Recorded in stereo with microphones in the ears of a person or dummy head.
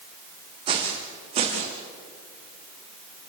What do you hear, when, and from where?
0.7 s footsteps: 30° right (ahead or behind), 4.5 m; by 1.8 s 35° right (ahead or behind), 5 m